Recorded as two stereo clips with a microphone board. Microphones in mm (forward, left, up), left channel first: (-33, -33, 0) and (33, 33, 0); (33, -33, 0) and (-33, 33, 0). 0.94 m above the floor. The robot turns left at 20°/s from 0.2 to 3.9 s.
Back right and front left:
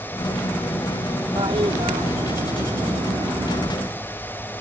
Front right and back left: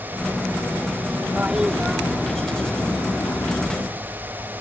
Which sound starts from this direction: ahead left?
A toilet flushing, at 1.4 s.